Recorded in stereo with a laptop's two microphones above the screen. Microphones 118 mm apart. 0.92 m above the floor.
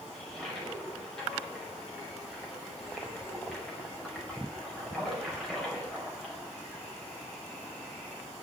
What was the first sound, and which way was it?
A toilet flushing, centre (ahead or behind).